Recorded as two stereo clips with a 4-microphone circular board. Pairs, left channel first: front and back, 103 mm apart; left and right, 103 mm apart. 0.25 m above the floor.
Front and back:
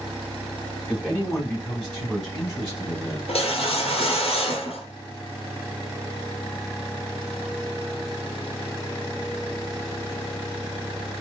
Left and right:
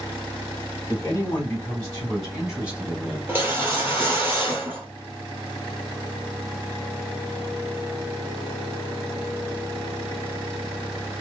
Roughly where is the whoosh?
Ahead.